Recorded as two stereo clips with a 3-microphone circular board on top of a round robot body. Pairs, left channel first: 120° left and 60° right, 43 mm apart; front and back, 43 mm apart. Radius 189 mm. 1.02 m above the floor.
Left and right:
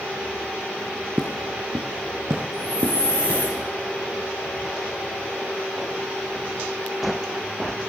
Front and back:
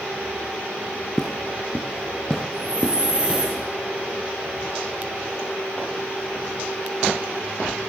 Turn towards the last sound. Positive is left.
turn(degrees=125)